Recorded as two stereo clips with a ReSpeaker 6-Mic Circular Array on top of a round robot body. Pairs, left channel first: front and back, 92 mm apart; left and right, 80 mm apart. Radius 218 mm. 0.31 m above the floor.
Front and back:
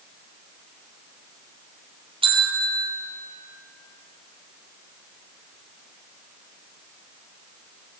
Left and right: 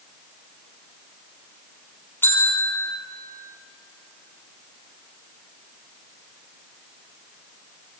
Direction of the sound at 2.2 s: 155° left.